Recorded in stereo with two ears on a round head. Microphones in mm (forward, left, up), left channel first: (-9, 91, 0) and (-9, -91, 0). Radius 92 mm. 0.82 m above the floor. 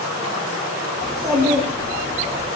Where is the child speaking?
20° right (ahead or behind), 0.6 m.